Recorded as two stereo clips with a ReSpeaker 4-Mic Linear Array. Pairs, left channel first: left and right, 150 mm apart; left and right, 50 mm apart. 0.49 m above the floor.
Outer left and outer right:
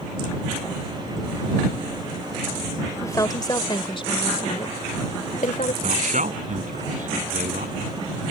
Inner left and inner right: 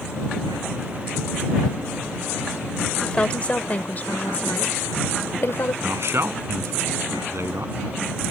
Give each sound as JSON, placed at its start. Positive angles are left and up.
{"t": 3.0, "sound": "a woman speaking", "side_deg": 20}
{"t": 5.8, "sound": "a man speaking", "side_deg": -60}